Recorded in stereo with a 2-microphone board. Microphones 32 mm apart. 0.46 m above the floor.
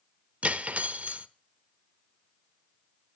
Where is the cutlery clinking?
45° right (ahead or behind), 0.5 m.